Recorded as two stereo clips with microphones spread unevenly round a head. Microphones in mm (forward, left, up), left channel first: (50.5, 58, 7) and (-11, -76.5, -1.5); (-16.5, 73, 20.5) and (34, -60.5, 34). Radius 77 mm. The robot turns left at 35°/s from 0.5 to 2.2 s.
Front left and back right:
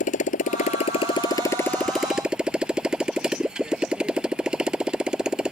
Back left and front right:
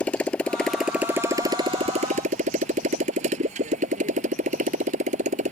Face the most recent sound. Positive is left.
turn(degrees=-30)